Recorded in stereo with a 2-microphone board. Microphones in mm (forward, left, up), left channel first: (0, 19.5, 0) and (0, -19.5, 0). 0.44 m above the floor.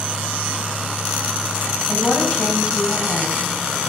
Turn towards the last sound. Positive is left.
turn(degrees=25)  # may be behind; listen again after turning